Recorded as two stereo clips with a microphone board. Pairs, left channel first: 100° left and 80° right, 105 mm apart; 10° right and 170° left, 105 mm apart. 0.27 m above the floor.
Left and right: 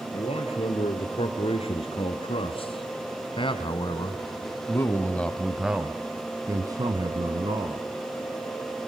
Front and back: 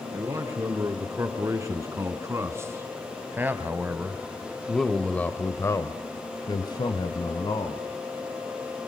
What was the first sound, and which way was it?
A man speaking, 115° left.